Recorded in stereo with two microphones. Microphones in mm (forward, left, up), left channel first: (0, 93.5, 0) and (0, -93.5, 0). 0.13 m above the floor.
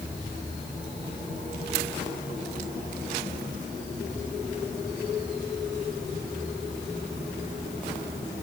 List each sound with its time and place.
Only background noise.